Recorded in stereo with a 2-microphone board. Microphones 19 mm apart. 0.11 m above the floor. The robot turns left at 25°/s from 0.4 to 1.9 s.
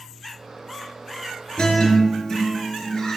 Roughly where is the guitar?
Left.